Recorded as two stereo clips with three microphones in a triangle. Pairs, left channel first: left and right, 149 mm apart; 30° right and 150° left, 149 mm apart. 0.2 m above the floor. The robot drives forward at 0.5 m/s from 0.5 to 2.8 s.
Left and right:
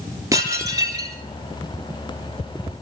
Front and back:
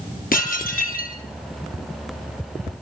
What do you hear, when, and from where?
0.3 s dishes clattering: 20° right, 3 m; by 1.2 s 25° right, 3 m